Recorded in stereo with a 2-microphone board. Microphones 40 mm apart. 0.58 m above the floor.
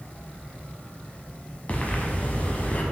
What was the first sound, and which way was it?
Breathing, 35° left (ahead or behind).